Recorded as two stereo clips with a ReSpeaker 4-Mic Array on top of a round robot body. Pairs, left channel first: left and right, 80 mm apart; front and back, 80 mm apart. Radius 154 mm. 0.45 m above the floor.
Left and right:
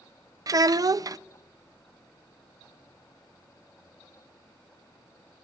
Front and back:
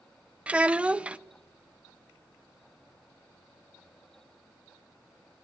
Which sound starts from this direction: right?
A child speaking, at 0.5 s.